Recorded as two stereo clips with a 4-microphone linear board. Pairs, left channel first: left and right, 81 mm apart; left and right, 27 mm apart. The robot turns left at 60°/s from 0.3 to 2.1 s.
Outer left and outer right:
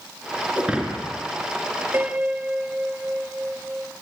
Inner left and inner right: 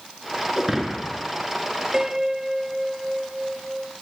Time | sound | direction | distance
0.6 | breaking glass | 160° right | 4 m
1.9 | a piano | 30° right (ahead or behind) | 1.9 m